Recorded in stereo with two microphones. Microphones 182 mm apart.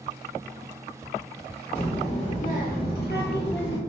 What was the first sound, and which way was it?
A child speaking, 30° left (ahead or behind).